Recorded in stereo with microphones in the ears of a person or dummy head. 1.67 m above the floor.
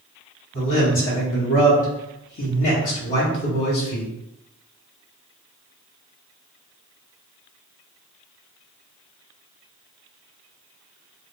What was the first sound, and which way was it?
A man speaking, 40° left (ahead or behind).